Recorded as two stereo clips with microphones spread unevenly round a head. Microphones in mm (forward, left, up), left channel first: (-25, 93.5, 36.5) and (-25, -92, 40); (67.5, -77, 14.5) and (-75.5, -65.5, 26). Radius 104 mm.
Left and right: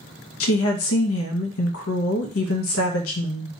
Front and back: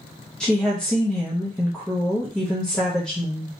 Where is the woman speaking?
85° left, 0.6 m.